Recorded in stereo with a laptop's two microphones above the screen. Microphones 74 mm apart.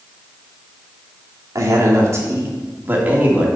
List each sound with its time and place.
1.6 s a man speaking: 50° right (ahead or behind), 2.5 m; by 3.5 s 20° right (ahead or behind), 2.5 m